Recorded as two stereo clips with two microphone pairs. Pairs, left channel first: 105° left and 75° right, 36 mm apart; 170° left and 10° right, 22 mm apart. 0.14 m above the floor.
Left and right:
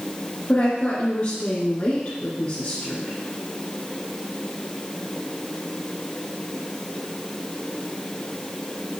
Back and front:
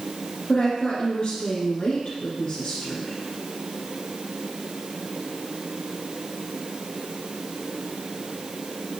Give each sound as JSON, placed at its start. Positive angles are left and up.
{"t": 0.5, "sound": "a woman speaking", "azimuth_deg": 145, "distance_m": 1.9}